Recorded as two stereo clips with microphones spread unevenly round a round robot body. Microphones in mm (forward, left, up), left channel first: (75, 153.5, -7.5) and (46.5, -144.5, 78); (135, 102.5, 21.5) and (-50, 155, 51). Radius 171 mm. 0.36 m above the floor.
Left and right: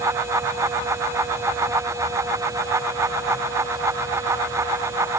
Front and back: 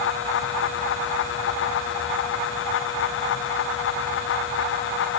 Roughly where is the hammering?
I don't hear hammering.